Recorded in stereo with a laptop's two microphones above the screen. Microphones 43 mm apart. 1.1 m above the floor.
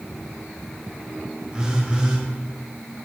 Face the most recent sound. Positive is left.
turn(degrees=-20)  # may be behind; listen again after turning